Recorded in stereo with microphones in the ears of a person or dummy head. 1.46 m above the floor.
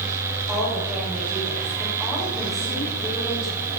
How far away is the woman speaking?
About 8 m.